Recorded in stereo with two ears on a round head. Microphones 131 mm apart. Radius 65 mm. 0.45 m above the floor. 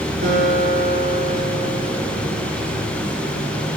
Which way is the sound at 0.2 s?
60° right (ahead or behind).